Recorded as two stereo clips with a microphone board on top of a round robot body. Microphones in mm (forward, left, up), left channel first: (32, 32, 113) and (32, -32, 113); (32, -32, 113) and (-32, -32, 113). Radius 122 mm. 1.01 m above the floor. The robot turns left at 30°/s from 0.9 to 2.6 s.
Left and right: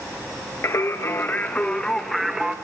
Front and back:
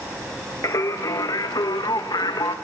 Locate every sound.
0.6 s singing: 40° left, 1.0 m; by 2.5 s 10° right, 1.0 m